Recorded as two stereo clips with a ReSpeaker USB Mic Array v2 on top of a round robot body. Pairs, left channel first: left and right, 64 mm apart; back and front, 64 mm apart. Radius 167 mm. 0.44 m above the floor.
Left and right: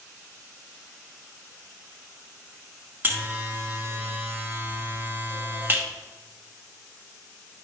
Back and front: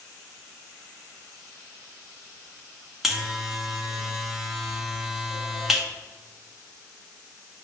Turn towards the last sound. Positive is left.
turn(degrees=-85)